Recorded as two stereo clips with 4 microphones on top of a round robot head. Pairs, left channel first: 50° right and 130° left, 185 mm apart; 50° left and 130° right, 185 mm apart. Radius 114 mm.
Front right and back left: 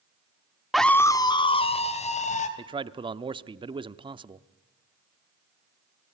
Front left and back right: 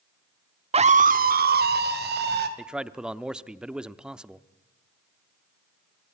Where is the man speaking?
150° left, 0.8 m.